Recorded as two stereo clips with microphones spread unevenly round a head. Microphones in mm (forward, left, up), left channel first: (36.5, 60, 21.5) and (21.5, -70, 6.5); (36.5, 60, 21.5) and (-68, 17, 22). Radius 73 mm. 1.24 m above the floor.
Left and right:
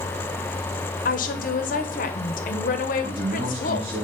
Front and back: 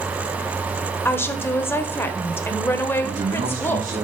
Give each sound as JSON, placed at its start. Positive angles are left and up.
{"t": 1.1, "sound": "a woman speaking", "azimuth_deg": 90, "distance_m": 0.9}
{"t": 3.0, "sound": "a man speaking", "azimuth_deg": -145, "distance_m": 1.8}